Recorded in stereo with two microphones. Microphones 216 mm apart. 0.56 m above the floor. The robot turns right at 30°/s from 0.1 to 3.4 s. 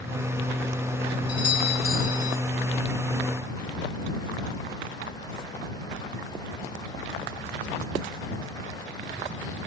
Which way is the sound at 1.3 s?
70° right.